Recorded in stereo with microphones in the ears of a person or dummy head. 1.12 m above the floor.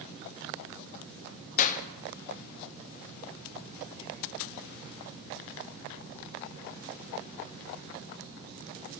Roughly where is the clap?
Left.